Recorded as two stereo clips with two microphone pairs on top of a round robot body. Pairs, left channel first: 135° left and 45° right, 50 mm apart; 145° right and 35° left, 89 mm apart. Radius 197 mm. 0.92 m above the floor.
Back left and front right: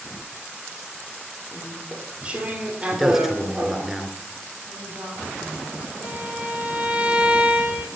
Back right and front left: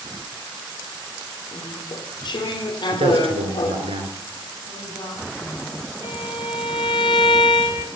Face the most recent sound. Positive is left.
turn(degrees=-115)